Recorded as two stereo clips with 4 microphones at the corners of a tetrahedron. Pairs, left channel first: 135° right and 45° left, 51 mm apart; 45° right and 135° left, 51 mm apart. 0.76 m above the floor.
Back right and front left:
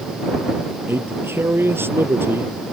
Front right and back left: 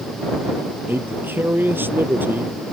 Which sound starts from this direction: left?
A man speaking, at 0.9 s.